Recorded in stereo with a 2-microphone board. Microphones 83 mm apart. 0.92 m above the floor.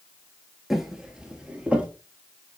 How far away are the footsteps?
About 1.0 m.